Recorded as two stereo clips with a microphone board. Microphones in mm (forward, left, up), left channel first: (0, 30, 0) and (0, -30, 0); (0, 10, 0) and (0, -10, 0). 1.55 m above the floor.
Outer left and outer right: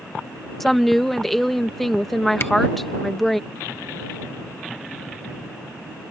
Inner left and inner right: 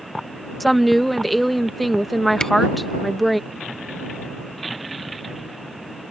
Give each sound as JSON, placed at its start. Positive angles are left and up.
{"t": 0.6, "sound": "a woman speaking", "side_deg": 5}
{"t": 2.4, "sound": "a camera shutter", "side_deg": 45}